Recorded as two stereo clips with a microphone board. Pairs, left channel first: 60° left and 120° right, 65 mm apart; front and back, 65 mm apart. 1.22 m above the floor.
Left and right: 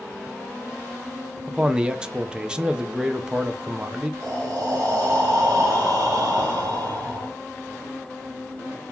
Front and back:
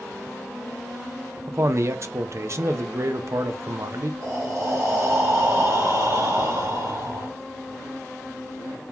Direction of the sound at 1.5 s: 165° left.